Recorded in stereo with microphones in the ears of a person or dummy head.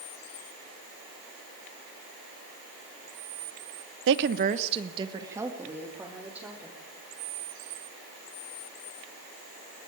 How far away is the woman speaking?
About 0.9 m.